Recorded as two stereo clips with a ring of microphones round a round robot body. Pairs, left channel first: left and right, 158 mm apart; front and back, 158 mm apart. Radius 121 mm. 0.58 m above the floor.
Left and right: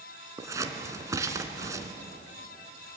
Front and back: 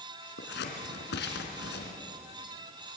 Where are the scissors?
20° right, 2.5 m.